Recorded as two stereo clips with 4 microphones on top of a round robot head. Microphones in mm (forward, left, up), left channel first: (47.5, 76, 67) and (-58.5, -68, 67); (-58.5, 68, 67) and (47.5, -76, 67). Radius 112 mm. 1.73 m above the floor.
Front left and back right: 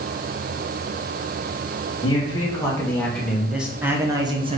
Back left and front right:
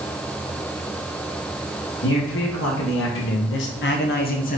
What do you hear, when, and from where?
2.0 s a man speaking: 120° left, 1.9 m; by 4.6 s 175° left, 1.3 m